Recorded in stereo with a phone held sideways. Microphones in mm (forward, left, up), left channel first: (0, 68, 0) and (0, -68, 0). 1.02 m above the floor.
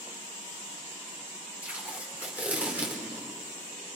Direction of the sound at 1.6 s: 10° right (ahead or behind).